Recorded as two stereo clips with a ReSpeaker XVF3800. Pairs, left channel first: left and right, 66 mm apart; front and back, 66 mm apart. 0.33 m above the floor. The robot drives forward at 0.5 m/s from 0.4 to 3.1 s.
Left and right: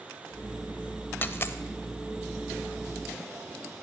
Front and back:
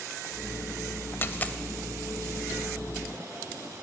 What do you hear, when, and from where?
1.2 s a dropped coin: 40° left, 0.7 m; by 1.6 s 60° left, 0.6 m